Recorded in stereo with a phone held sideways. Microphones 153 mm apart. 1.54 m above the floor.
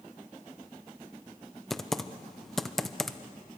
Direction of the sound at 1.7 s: Centre (ahead or behind).